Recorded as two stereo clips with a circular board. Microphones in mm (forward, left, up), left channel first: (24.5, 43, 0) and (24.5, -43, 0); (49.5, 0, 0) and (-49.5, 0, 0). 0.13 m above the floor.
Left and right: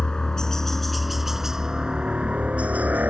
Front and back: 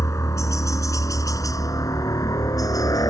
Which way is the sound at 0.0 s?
20° left.